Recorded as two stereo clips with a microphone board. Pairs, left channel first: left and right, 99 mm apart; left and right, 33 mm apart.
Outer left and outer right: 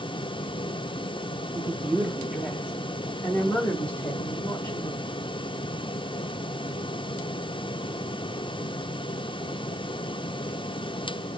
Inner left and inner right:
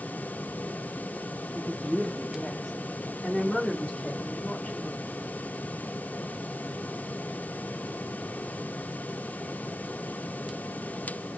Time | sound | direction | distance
1.6 | a woman speaking | 30° right (ahead or behind) | 0.7 m